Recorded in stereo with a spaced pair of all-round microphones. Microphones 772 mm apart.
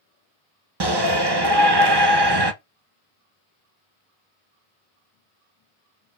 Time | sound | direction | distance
0.8 | a shout | 35° right (ahead or behind) | 0.7 m